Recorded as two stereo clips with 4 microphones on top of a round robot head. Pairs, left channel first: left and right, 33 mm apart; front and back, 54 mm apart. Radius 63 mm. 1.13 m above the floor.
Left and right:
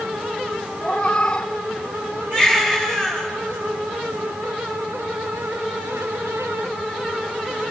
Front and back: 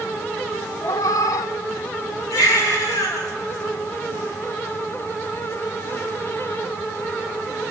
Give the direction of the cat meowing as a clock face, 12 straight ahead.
11 o'clock.